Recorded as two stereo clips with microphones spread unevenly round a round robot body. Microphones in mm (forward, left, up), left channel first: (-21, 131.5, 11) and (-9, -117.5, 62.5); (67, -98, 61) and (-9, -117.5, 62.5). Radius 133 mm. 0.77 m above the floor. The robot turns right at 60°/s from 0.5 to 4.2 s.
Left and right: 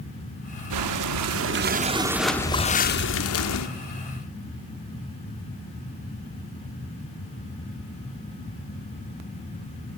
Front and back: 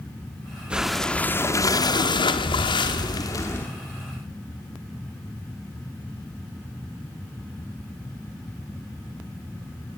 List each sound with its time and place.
0.7 s breathing: 90° right, 1.4 m; by 3.7 s 90° left, 1.4 m